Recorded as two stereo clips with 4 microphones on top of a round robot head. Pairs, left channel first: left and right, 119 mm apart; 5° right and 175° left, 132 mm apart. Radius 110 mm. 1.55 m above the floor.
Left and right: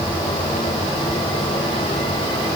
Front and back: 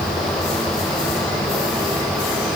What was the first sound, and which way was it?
Only background noise.